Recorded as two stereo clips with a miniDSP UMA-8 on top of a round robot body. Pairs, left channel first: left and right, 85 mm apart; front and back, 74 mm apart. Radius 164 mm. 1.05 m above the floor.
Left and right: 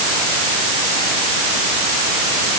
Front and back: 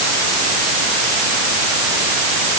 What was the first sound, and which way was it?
Only background noise.